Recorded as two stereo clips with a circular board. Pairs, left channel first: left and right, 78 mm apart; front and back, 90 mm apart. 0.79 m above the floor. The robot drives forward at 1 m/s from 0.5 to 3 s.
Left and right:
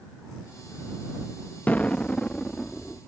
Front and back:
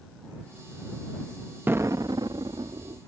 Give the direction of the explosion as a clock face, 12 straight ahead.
7 o'clock.